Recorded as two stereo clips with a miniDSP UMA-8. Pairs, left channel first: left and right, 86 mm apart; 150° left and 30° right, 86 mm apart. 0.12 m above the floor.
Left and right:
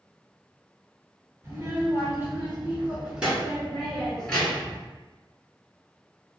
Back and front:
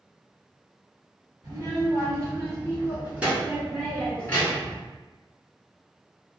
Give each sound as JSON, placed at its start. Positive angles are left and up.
{"t": 1.4, "sound": "a child speaking", "azimuth_deg": -45, "distance_m": 1.8}